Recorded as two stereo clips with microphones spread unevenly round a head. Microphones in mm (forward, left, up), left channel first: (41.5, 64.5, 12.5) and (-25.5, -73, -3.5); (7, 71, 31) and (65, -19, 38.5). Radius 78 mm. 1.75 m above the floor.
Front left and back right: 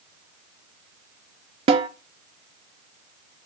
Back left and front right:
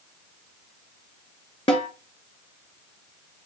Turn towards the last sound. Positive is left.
turn(degrees=-175)